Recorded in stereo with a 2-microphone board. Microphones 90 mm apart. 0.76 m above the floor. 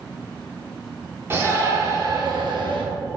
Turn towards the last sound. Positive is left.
turn(degrees=-65)  # may be behind; listen again after turning